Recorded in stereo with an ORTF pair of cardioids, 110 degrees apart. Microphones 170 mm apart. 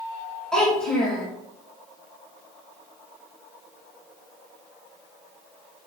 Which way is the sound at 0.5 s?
5° left.